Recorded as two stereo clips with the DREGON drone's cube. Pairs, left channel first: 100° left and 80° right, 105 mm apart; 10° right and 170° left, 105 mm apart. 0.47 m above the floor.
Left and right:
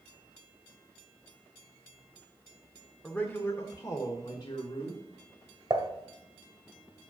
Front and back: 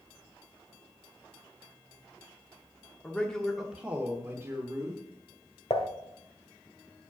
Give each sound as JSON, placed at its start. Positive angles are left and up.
{"t": 3.0, "sound": "a man speaking", "azimuth_deg": 40, "distance_m": 1.0}
{"t": 5.7, "sound": "dishes clattering", "azimuth_deg": -30, "distance_m": 1.4}